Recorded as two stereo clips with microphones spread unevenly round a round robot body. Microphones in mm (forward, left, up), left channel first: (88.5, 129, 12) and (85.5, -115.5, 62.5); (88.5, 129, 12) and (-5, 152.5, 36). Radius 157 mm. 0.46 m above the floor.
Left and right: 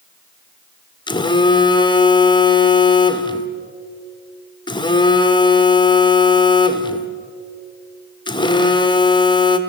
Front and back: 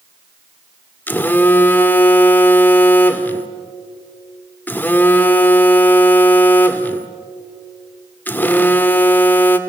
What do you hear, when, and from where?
1.1 s a phone buzzing: 35° left, 1.6 m